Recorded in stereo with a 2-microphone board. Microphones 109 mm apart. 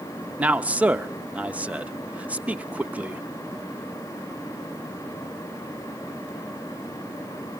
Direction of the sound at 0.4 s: 15° right (ahead or behind).